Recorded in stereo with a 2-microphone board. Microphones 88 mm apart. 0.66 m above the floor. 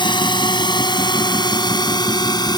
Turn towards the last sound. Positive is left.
turn(degrees=50)  # may be behind; listen again after turning